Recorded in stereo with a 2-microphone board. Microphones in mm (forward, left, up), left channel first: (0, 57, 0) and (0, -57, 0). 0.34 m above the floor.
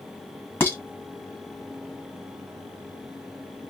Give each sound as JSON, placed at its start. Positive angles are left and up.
{"t": 0.6, "sound": "dishes clattering", "side_deg": 15, "distance_m": 1.5}